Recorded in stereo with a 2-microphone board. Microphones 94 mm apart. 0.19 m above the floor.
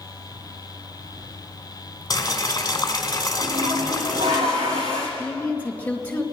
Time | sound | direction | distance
2.1 | boiling | 45° left (ahead or behind) | 1.3 m
3.4 | a toilet flushing | 80° right | 5.5 m
5.2 | a woman speaking | 15° left (ahead or behind) | 2.5 m